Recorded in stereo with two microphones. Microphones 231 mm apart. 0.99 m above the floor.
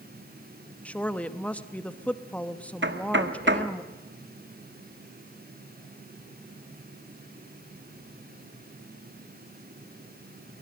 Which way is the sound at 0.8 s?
5° left (ahead or behind).